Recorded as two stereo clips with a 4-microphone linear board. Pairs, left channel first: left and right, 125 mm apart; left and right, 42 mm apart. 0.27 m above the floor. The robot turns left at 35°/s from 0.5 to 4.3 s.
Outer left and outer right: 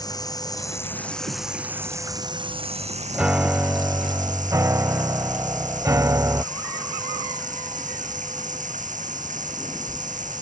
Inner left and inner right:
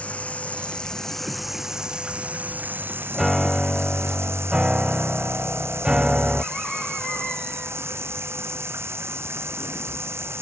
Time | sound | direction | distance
0.0 | running water | 30° left | ?
3.1 | a piano | 15° right | ?